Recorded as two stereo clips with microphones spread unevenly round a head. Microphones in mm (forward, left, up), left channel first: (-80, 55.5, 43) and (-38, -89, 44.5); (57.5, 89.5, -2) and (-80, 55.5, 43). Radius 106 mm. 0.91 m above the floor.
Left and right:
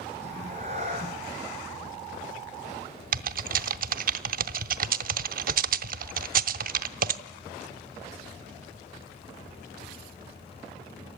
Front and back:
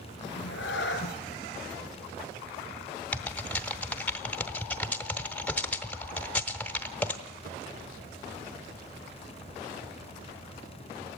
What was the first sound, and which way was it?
A cat meowing, 10° right.